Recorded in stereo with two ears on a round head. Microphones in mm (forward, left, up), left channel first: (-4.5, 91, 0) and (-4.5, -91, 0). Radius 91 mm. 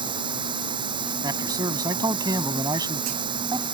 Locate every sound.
0.0 s running water: 25° right (ahead or behind)
1.2 s a man speaking: 20° right (ahead or behind)